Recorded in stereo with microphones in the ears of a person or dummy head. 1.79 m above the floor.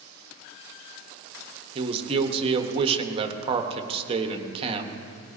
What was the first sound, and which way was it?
A man speaking, 35° right (ahead or behind).